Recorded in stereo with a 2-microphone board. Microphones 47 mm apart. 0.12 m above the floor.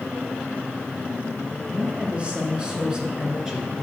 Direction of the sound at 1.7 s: 25° right (ahead or behind).